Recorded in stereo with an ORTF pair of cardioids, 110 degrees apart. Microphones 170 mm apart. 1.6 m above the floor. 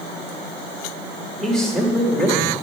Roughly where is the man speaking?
Ahead.